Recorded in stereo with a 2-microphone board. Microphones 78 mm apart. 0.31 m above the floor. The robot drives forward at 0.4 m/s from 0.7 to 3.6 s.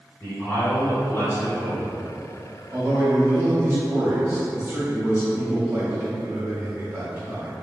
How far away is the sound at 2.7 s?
About 1.1 m.